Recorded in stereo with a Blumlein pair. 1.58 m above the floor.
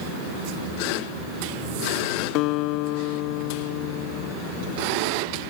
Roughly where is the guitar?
Ahead left.